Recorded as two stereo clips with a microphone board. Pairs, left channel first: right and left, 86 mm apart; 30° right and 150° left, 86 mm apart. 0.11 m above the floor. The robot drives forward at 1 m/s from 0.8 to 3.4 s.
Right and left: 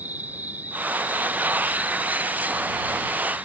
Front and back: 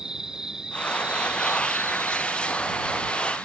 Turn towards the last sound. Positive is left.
turn(degrees=165)